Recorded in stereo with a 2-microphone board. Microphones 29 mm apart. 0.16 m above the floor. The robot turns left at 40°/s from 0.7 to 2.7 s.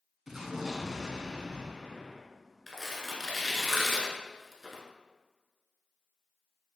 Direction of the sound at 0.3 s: 25° right.